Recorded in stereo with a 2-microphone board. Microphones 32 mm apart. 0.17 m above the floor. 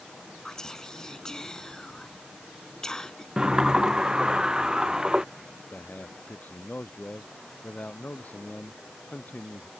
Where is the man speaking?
50° left (ahead or behind).